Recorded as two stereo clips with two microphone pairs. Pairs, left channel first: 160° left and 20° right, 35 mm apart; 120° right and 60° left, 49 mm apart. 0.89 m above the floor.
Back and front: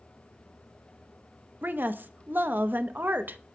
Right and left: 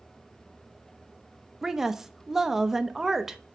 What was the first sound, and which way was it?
A woman speaking, 20° right.